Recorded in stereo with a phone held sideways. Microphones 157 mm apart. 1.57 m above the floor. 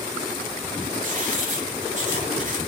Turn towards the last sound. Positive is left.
turn(degrees=-55)  # may be behind; listen again after turning